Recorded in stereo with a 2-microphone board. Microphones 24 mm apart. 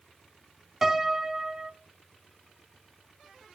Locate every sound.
0.8 s a piano: 15° right (ahead or behind), 0.7 m